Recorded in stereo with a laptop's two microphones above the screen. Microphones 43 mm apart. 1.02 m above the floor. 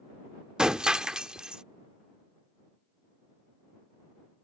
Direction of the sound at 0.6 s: 20° right (ahead or behind).